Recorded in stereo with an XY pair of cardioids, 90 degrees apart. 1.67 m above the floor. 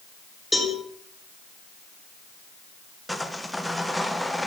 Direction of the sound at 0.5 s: 10° left.